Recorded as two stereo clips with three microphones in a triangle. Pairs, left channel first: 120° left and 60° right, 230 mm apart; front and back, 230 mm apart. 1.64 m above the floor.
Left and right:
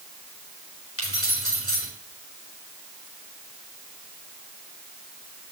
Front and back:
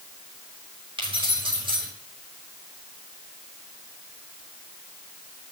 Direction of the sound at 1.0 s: 110° left.